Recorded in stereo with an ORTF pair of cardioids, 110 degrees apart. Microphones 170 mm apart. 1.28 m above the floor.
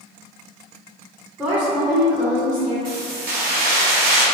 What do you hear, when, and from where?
1.4 s a woman speaking: 10° right, 1.2 m
2.9 s keys jangling: 60° right, 1.4 m